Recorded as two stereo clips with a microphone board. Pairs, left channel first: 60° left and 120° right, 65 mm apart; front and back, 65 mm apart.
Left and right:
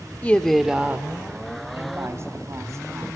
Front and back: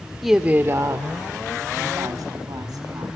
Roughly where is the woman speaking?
Left.